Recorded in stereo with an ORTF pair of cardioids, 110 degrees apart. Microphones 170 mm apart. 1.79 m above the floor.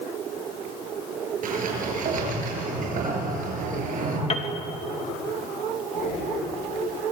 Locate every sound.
1.4 s a sliding door: 55° right, 8 m
4.3 s a piano: 40° left, 2.5 m
5.9 s breathing: 50° left, 8.5 m